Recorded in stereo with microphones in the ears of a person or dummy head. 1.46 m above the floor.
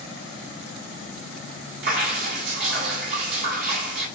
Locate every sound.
1.8 s dripping: 65° right (ahead or behind), 1.9 m